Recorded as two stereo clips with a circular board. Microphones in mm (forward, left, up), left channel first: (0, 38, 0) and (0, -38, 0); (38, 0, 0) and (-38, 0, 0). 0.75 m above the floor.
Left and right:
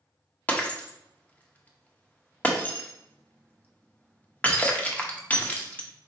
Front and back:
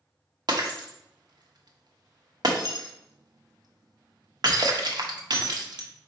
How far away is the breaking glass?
About 0.7 m.